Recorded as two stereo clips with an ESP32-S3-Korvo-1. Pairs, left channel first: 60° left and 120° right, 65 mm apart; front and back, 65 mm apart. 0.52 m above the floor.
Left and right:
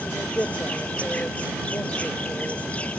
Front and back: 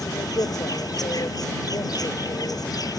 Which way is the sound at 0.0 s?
10° right.